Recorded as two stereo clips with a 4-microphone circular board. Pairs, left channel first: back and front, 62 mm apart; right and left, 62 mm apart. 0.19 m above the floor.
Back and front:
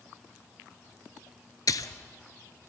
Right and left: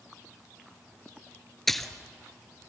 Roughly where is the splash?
Behind.